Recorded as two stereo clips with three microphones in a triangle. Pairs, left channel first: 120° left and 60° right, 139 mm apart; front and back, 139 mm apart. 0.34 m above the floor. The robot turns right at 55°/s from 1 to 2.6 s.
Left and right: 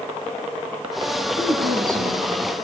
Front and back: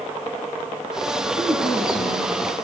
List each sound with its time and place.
1.4 s a woman speaking: 90° right, 6.5 m; by 2.6 s 25° right, 6.5 m